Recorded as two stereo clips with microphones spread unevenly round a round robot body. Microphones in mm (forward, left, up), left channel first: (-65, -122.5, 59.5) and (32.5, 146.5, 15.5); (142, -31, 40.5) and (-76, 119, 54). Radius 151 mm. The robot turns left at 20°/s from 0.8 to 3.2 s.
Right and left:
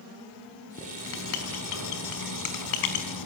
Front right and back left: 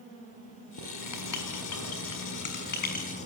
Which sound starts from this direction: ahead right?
Writing, at 0.8 s.